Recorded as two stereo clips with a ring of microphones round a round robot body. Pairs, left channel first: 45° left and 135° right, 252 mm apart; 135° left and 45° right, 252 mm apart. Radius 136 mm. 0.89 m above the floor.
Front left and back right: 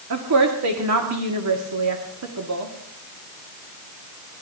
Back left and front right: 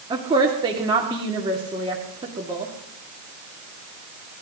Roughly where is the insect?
I don't hear an insect.